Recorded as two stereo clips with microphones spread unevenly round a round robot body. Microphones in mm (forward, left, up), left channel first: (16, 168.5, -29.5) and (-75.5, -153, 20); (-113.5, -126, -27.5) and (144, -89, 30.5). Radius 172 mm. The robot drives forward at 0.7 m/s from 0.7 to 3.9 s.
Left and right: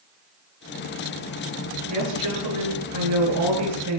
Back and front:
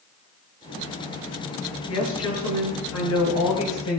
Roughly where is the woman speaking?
Behind right.